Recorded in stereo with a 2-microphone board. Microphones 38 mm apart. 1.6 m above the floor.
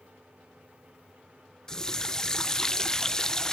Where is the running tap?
20° left (ahead or behind), 0.6 m.